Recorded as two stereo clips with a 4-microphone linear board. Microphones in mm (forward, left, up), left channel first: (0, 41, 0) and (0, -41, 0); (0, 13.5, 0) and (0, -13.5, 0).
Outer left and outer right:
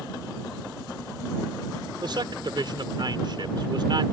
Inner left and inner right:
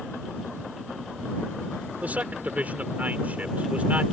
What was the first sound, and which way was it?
A man speaking, 70° right (ahead or behind).